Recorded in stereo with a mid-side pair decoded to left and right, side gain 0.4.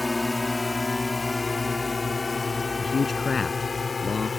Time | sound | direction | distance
0.0 | a drone | 20° left | ?
2.8 | a man speaking | 40° left | ?